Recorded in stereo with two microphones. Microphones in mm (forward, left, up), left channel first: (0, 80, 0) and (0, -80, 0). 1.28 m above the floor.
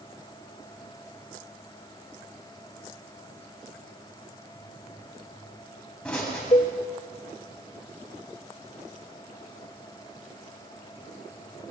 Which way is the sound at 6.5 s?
40° left (ahead or behind).